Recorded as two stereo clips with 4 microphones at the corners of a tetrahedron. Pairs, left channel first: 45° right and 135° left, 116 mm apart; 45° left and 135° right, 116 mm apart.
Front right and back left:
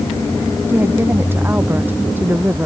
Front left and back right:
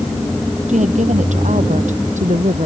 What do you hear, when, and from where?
0.7 s a woman speaking: 150° right